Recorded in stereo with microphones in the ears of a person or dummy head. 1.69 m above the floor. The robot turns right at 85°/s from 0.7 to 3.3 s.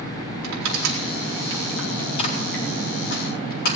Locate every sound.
0.4 s crushing: 90° right, 4.5 m; by 3.8 s 50° left (ahead or behind), 4.5 m